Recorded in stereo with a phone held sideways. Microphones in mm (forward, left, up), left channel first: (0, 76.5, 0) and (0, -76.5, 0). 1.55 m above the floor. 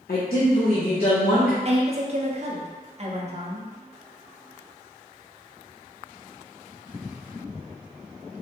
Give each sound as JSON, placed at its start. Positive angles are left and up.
{"t": 0.1, "sound": "a woman speaking", "side_deg": 75, "distance_m": 0.6}
{"t": 1.6, "sound": "a woman speaking", "side_deg": -45, "distance_m": 0.7}